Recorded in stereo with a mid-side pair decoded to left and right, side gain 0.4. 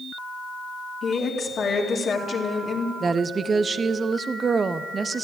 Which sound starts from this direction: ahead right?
A woman speaking, at 3.0 s.